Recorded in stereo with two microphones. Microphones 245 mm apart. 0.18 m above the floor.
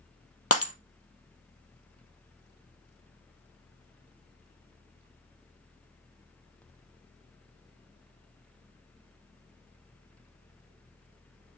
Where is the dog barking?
No dog barking in this recording.